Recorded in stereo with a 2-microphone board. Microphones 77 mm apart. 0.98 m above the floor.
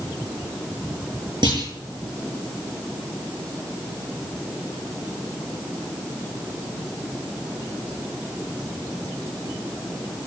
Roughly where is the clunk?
Right.